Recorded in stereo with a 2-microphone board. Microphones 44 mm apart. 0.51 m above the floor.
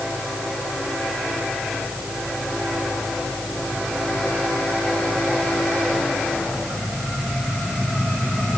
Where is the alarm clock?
I don't hear an alarm clock.